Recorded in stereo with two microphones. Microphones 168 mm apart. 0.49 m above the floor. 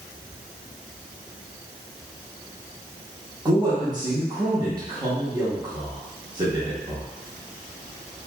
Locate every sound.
3.5 s a man speaking: 25° right (ahead or behind), 0.7 m